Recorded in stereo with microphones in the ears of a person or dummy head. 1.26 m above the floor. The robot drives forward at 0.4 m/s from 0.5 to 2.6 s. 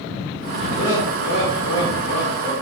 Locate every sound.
0.8 s laughter: 70° left (ahead or behind), 0.8 m; by 2.5 s 55° left (ahead or behind), 1.0 m